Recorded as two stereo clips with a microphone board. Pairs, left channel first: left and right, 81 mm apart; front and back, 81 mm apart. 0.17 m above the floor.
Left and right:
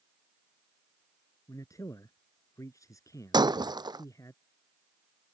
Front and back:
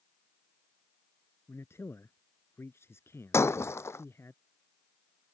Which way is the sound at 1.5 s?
50° left.